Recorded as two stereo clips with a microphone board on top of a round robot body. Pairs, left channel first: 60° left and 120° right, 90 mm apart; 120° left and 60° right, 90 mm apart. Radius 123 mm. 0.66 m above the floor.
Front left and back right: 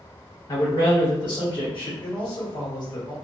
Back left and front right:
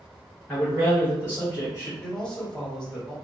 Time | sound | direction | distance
0.5 | a man speaking | 45° left | 1.1 m
2.0 | a man speaking | 40° left | 1.8 m